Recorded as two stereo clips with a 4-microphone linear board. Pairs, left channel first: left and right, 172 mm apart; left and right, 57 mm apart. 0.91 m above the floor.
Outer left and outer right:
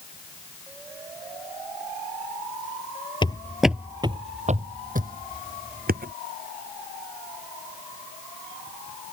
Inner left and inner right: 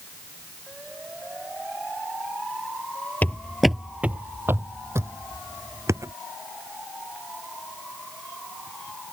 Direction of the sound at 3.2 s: 30° left (ahead or behind).